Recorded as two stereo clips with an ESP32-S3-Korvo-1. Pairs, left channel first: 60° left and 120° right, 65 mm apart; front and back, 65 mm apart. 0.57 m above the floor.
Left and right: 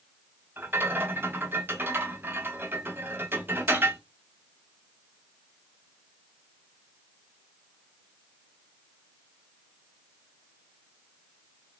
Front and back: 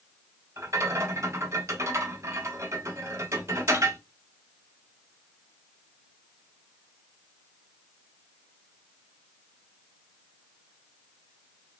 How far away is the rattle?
About 0.5 m.